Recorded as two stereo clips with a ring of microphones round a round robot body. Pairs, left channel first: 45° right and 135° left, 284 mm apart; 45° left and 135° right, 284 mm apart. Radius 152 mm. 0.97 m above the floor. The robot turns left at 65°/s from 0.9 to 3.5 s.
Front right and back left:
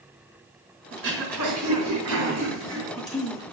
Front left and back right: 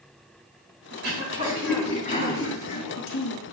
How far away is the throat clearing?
About 3.5 m.